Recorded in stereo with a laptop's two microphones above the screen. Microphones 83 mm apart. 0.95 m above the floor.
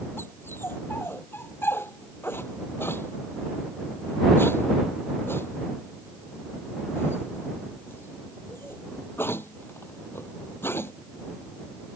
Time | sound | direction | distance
0.2 | a dog barking | 30° left (ahead or behind) | ?